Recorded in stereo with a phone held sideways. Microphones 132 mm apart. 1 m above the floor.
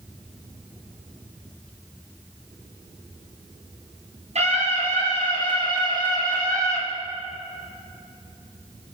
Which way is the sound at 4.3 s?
50° right (ahead or behind).